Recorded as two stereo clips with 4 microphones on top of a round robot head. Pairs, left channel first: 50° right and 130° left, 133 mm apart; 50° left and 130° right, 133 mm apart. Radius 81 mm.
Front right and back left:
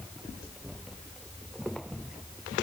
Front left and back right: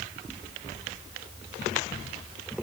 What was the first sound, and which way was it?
Only background noise.